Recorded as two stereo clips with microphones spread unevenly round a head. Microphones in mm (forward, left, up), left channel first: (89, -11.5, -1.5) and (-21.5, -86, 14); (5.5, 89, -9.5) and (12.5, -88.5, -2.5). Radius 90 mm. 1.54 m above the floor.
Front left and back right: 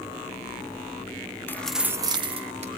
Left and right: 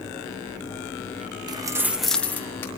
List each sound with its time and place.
1.5 s keys jangling: 40° right, 0.9 m; by 2.7 s 170° left, 1.6 m